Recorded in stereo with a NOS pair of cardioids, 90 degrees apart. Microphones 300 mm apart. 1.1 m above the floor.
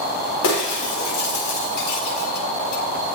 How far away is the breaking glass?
About 5 m.